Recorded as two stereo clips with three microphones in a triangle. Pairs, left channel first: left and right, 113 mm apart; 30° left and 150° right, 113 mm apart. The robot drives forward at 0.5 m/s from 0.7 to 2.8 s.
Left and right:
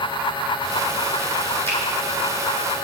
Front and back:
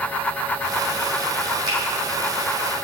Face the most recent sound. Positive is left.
turn(degrees=165)